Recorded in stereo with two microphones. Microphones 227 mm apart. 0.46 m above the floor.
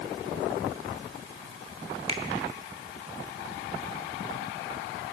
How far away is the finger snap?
About 1.2 m.